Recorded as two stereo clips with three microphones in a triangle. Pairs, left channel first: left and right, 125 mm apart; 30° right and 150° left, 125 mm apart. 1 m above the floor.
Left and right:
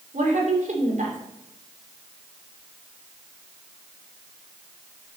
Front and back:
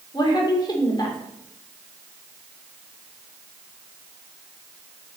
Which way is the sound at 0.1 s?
85° right.